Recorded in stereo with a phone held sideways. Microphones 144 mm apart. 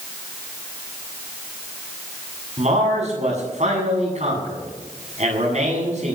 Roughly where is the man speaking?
Right.